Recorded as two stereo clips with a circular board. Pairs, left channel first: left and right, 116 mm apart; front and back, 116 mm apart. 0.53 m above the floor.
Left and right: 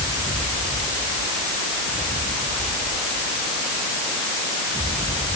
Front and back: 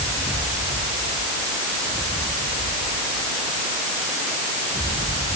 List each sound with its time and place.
Only background noise.